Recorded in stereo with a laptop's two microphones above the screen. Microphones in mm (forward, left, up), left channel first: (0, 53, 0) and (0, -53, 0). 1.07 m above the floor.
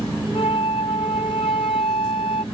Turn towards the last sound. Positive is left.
turn(degrees=70)  # may be behind; listen again after turning